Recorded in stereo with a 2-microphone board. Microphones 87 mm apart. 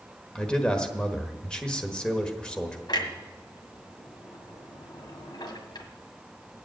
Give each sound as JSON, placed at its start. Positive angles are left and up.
{"t": 0.3, "sound": "a man speaking", "side_deg": 10, "distance_m": 1.2}
{"t": 2.9, "sound": "a clunk", "side_deg": 65, "distance_m": 1.7}